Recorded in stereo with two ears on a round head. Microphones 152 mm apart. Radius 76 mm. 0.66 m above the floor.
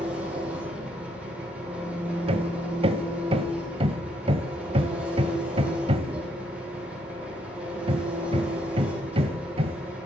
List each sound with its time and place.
0.0 s an engine running: 10° right (ahead or behind), 6 m
2.3 s hammering: 35° right (ahead or behind), 1.1 m